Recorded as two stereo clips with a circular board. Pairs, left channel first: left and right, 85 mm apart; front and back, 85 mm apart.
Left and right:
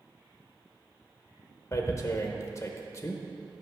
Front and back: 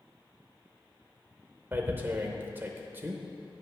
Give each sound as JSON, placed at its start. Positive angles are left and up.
{"t": 1.7, "sound": "tearing paper", "azimuth_deg": 125, "distance_m": 0.7}